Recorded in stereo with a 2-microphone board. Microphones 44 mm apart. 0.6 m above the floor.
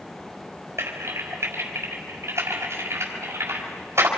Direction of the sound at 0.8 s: 75° right (ahead or behind).